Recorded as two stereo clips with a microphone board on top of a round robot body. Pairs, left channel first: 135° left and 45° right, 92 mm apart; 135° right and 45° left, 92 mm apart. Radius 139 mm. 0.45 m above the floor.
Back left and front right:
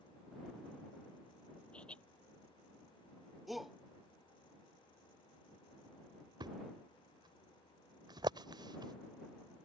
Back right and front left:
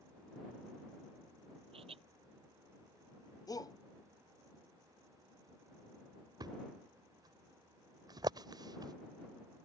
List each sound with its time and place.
1.7 s laughter: 55° left
3.5 s a shout: 135° right
6.4 s a thud: straight ahead